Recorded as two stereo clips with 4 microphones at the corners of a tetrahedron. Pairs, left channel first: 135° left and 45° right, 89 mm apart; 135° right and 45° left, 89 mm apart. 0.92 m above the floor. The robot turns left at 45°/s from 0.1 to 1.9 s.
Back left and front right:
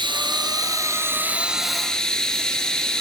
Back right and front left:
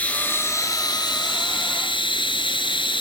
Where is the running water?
60° right, 3.5 m; by 3.0 s 140° right, 3.5 m.